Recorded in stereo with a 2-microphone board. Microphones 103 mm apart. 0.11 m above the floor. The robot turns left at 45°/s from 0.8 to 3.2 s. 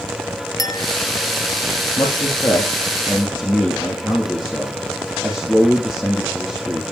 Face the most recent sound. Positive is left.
turn(degrees=15)